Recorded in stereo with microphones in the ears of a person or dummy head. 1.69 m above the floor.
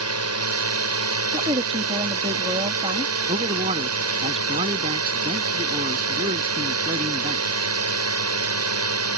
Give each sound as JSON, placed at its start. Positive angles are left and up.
{"t": 0.0, "sound": "a drone", "side_deg": -85}
{"t": 1.3, "sound": "a woman speaking", "side_deg": -20}
{"t": 3.3, "sound": "a man speaking", "side_deg": -30}